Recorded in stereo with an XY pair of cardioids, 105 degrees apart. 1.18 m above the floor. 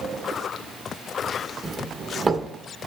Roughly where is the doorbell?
Ahead right.